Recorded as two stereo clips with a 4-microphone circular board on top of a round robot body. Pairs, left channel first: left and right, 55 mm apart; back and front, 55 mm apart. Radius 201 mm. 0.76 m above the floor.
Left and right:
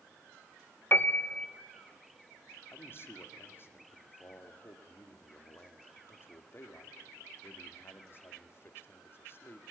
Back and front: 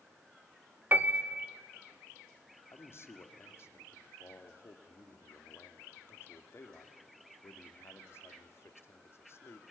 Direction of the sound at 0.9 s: 45° left.